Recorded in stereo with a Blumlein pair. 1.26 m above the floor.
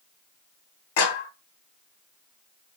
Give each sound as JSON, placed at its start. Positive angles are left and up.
{"t": 1.0, "sound": "a clap", "azimuth_deg": 50, "distance_m": 1.0}